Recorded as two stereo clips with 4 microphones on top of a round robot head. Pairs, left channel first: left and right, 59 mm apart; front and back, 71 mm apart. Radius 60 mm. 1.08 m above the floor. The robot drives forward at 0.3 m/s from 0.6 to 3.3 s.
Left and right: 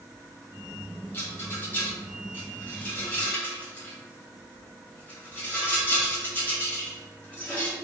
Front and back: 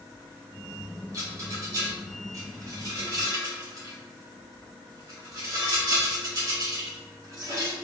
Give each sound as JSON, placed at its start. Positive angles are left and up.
{"t": 1.1, "sound": "a rattle", "azimuth_deg": 145, "distance_m": 1.7}